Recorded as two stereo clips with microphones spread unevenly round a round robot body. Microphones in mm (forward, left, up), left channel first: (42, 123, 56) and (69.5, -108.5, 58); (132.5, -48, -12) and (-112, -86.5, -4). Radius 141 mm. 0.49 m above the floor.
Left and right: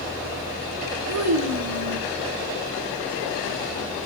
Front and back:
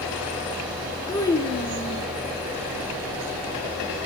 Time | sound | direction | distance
1.1 | a child speaking | 65° right | 4.5 m